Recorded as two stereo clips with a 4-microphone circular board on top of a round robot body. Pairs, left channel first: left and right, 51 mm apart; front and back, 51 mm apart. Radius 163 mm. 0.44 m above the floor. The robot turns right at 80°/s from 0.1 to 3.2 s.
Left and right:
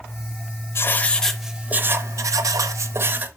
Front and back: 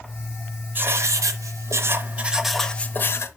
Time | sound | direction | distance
0.8 | writing | 130° left | 0.6 m